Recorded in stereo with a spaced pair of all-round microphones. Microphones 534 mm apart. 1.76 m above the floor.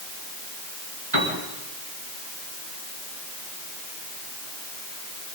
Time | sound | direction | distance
1.1 | a piano | 50° right (ahead or behind) | 4.5 m